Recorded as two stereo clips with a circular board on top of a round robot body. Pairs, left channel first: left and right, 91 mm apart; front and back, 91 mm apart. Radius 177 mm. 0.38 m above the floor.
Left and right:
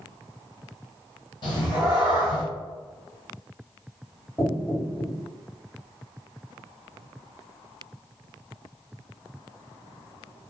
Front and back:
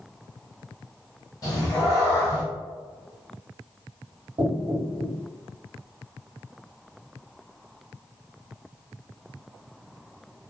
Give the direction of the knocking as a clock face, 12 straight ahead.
7 o'clock.